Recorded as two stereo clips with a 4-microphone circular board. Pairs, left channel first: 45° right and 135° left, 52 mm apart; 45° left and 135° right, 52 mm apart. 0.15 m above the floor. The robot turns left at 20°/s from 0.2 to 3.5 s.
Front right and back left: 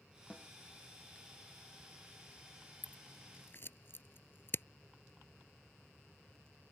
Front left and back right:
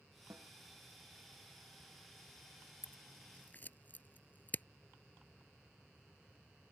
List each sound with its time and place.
0.3 s a snare drum: 115° right; by 0.5 s 120° right
2.8 s scissors: 5° left; by 4.7 s 5° right